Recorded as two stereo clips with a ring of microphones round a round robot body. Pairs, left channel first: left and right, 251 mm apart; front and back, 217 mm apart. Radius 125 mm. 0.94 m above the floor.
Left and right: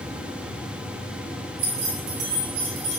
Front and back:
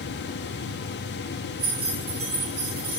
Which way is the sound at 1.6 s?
105° right.